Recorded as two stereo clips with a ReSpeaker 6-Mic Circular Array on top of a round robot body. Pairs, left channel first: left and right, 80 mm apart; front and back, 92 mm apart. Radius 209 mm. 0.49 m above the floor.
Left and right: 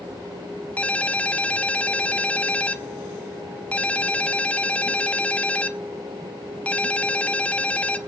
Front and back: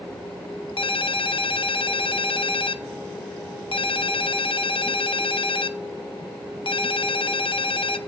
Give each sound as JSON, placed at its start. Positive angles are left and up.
{"t": 0.8, "sound": "a ringtone", "azimuth_deg": 15, "distance_m": 0.9}